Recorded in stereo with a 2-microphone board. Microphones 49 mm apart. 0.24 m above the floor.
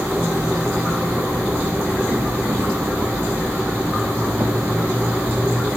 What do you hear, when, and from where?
0.0 s an insect: 70° right (ahead or behind), 2.0 m